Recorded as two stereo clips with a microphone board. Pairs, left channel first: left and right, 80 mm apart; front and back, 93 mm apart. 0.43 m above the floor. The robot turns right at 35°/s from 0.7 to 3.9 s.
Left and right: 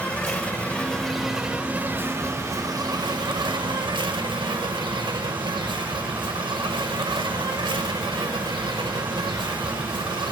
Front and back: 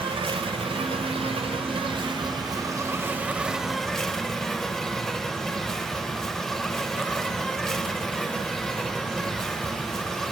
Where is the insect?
165° left, 0.7 m; by 10.3 s 85° right, 0.7 m.